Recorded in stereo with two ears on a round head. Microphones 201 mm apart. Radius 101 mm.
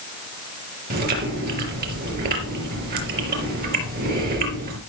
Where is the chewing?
40° right (ahead or behind), 4.5 m.